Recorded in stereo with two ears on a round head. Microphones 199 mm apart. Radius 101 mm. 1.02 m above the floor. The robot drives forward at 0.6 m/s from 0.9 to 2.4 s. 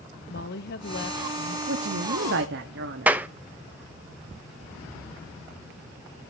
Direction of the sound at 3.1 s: 10° right (ahead or behind).